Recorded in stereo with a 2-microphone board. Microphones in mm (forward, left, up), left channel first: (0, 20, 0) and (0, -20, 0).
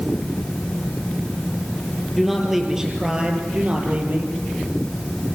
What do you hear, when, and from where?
2.1 s a man speaking: centre (ahead or behind), 4.5 m; by 4.3 s 40° right (ahead or behind), 5 m